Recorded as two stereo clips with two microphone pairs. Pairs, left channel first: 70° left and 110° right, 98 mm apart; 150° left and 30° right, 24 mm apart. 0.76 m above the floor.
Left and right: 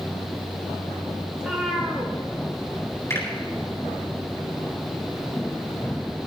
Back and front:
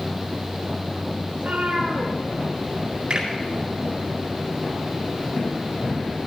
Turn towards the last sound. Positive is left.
turn(degrees=10)